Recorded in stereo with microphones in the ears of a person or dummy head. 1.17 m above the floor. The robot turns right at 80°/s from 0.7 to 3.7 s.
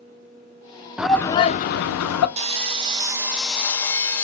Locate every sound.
1.0 s a shout: 5° right, 0.5 m; by 2.3 s 95° left, 0.5 m
2.4 s sawing: 25° right (ahead or behind), 0.6 m; by 4.2 s 10° left (ahead or behind), 0.6 m